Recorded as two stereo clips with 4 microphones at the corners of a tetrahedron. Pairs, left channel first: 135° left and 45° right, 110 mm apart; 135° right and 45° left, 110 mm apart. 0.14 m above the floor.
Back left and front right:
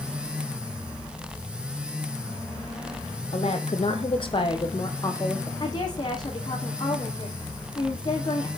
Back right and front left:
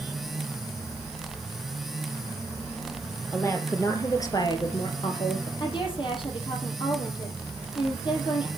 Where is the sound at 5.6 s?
175° right, 5 m.